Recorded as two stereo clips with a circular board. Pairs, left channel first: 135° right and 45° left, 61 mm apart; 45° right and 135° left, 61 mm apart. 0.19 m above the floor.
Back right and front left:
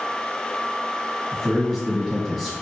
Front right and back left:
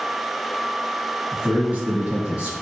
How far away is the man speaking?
About 1.2 m.